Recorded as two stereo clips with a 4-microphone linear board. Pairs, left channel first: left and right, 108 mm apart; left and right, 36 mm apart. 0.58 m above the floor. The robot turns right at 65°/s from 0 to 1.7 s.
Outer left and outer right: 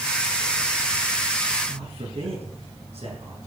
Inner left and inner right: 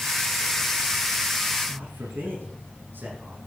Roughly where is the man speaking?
Right.